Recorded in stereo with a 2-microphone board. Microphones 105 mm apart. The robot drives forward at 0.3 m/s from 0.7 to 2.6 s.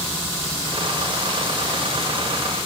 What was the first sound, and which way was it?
Only background noise.